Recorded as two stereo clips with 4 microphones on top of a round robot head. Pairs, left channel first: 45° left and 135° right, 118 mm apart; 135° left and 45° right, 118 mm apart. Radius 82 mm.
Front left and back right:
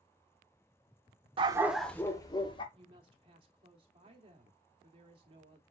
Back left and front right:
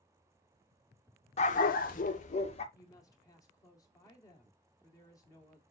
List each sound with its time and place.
1.4 s a dog barking: 175° left, 0.5 m; by 2.6 s 100° left, 1.1 m
2.7 s a woman speaking: 170° right, 1.9 m